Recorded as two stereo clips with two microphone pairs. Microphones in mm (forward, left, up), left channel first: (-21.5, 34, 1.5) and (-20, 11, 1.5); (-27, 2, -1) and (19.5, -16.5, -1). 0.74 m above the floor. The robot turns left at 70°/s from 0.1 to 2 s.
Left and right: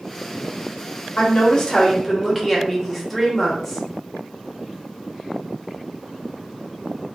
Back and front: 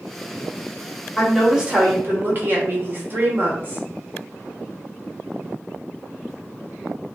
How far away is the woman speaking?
About 0.9 m.